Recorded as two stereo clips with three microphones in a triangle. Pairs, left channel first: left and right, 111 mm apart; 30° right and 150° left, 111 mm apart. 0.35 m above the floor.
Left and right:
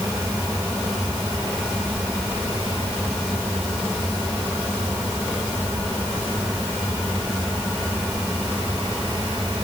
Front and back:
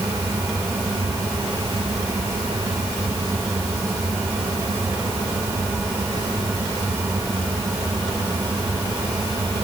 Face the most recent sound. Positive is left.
No sound to turn to.